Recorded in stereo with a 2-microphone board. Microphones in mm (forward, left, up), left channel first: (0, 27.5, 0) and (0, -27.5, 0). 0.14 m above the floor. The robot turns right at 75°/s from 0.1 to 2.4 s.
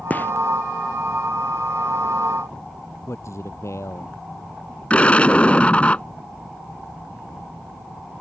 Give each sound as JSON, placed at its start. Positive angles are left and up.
{"t": 0.1, "sound": "a gunshot", "side_deg": 30}
{"t": 3.1, "sound": "a man speaking", "side_deg": 60}
{"t": 4.9, "sound": "an explosion", "side_deg": 25}